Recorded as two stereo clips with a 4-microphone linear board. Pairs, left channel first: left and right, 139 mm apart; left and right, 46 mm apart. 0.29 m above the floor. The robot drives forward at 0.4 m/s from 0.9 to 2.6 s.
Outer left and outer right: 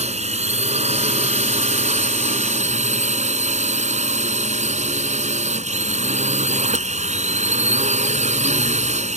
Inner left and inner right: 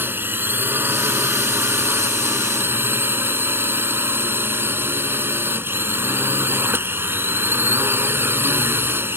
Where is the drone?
55° right (ahead or behind); by 9.2 s 60° right (ahead or behind).